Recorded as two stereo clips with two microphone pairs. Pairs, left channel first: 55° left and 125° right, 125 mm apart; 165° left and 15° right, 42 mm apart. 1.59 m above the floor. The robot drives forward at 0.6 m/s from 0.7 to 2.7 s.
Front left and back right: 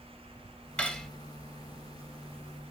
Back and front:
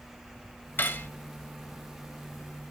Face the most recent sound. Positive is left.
turn(degrees=160)